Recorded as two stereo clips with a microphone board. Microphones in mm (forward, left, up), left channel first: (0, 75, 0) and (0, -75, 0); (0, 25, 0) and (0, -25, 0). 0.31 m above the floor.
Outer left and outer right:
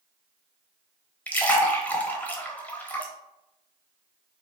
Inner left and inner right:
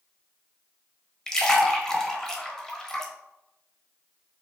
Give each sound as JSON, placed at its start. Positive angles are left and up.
{"t": 1.3, "sound": "a splash", "side_deg": 10, "distance_m": 0.8}